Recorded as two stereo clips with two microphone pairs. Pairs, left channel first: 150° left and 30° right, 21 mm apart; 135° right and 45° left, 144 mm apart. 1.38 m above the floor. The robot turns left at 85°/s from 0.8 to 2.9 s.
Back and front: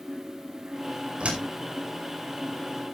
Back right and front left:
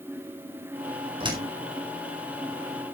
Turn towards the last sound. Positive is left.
turn(degrees=-150)